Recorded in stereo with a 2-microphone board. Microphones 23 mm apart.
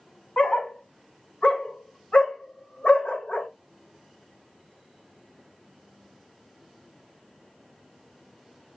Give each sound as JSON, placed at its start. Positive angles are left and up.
{"t": 0.4, "sound": "a dog barking", "side_deg": 55, "distance_m": 1.1}